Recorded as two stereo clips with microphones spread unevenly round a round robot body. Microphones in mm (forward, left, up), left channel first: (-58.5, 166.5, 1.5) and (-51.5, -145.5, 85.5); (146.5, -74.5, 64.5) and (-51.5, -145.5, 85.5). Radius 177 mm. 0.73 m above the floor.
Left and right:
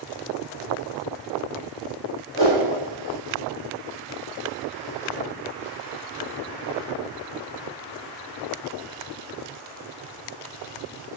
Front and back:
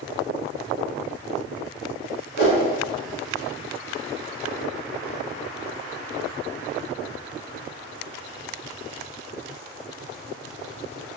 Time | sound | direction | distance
2.4 | a whoosh | 25° left | 1.6 m